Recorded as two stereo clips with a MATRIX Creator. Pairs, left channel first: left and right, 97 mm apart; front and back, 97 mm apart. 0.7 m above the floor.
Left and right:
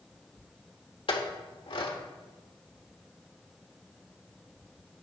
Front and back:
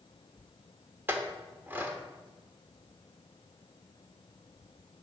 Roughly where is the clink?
Left.